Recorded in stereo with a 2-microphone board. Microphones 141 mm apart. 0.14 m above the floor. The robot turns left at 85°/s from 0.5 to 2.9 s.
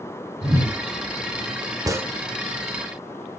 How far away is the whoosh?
About 0.8 m.